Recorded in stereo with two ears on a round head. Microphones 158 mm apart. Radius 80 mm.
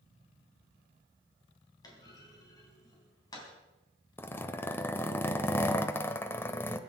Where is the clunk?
20° left (ahead or behind), 3.5 m.